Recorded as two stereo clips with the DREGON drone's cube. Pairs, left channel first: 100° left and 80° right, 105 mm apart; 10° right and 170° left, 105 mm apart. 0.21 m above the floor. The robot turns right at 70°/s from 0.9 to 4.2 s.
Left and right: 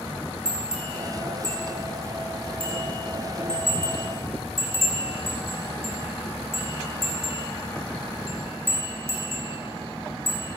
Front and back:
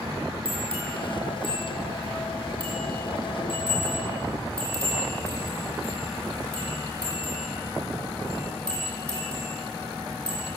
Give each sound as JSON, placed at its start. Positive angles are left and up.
{"t": 0.5, "sound": "a bell", "azimuth_deg": -165, "distance_m": 9.0}